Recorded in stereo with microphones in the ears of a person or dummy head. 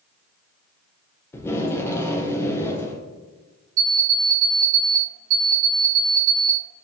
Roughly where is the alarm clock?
Right.